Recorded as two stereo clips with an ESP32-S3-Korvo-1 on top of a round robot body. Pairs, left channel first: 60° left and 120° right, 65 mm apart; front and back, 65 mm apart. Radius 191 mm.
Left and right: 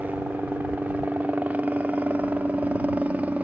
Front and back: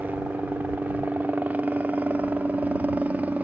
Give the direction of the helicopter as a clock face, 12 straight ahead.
5 o'clock.